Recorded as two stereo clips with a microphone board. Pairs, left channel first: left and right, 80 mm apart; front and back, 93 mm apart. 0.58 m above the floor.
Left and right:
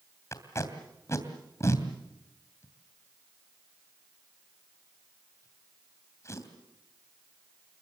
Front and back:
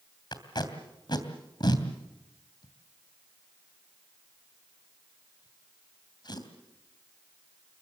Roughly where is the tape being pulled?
Ahead left.